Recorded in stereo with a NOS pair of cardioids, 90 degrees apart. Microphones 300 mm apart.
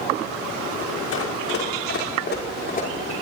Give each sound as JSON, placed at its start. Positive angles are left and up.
{"t": 1.1, "sound": "running footsteps", "azimuth_deg": 55, "distance_m": 5.0}